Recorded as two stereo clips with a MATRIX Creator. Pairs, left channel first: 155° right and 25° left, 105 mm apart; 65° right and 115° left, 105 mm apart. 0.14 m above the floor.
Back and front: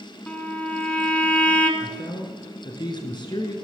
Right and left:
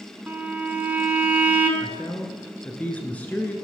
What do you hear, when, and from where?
0.3 s a violin: 150° left, 1.3 m
1.8 s a man speaking: 140° right, 1.6 m